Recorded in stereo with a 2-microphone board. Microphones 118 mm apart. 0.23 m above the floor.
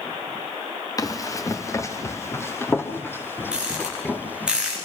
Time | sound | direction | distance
1.0 | running footsteps | 30° left (ahead or behind) | 2.5 m
3.5 | a rattle | 10° right (ahead or behind) | 7.5 m